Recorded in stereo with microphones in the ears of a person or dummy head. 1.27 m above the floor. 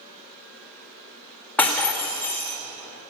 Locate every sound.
1.6 s breaking glass: centre (ahead or behind), 1.4 m